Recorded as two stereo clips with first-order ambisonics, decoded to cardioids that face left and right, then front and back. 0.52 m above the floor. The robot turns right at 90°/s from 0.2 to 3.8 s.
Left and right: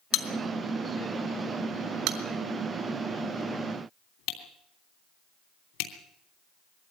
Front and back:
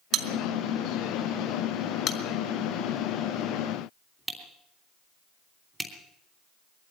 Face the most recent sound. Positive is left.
turn(degrees=100)